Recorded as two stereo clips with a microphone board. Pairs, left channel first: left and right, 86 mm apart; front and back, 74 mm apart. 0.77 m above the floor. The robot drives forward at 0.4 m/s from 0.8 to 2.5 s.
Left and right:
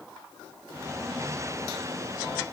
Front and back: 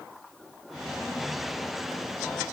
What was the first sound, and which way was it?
Only background noise.